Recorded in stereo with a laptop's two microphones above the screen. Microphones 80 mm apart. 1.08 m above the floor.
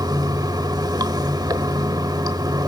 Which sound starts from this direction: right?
Running water, at 0.0 s.